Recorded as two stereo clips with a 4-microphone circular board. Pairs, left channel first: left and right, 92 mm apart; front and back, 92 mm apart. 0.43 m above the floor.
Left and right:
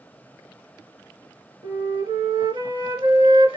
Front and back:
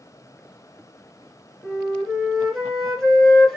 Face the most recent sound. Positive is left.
turn(degrees=-85)